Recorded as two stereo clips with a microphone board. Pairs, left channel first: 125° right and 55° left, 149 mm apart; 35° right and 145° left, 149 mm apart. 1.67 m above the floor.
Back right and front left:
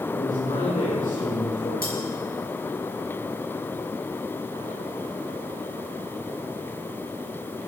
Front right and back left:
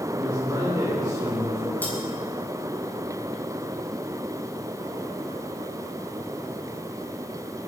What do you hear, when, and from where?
0.1 s a man speaking: 150° right, 5.5 m
1.8 s cutlery clinking: 115° right, 8 m